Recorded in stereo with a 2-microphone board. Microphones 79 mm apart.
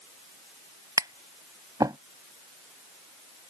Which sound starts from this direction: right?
Tapping, at 1.0 s.